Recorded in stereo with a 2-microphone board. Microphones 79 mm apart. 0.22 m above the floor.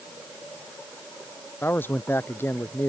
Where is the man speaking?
30° left (ahead or behind).